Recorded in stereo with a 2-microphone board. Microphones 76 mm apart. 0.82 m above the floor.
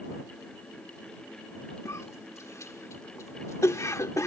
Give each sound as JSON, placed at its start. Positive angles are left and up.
{"t": 1.9, "sound": "a cough", "side_deg": 45}